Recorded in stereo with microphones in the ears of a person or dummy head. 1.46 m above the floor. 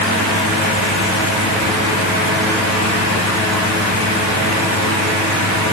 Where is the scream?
I don't hear a scream.